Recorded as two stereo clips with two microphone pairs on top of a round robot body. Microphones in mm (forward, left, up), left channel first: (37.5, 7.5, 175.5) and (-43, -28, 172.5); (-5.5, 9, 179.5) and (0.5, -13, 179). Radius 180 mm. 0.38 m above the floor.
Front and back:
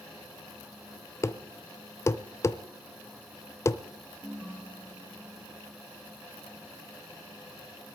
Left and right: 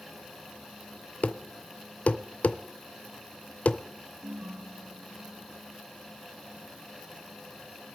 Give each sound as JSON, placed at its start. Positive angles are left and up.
{"t": 1.2, "sound": "a thud", "azimuth_deg": 85, "distance_m": 0.7}
{"t": 4.2, "sound": "a ringtone", "azimuth_deg": -70, "distance_m": 4.0}